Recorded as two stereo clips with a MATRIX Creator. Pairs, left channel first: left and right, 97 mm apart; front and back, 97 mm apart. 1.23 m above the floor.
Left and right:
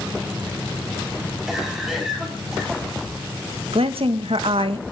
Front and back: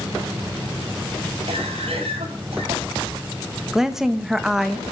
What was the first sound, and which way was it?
A cough, 175° right.